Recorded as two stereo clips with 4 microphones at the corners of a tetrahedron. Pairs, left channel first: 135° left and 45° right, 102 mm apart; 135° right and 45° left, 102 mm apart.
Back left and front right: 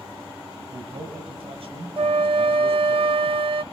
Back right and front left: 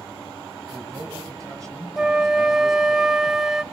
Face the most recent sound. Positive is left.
turn(degrees=-40)